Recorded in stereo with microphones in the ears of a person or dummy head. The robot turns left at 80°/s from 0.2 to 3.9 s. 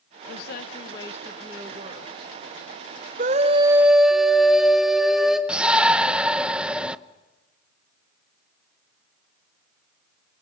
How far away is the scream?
About 0.8 m.